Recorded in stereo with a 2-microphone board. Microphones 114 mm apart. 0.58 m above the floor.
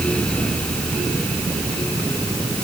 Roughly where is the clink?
No clink in this recording.